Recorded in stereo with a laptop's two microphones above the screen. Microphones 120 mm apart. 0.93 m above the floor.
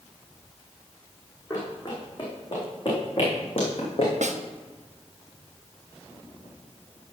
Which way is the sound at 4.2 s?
80° right.